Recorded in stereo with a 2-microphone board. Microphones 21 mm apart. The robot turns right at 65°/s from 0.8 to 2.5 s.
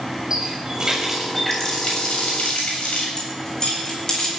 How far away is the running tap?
About 6.5 m.